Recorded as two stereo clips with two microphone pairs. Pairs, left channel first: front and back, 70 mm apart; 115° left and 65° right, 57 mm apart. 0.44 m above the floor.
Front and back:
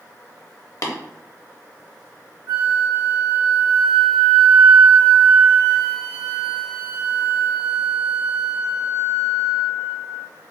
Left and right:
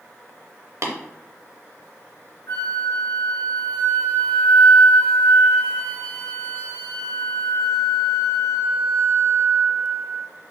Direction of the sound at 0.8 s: 40° right.